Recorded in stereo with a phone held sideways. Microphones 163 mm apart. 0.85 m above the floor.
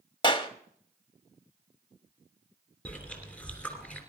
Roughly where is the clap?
Left.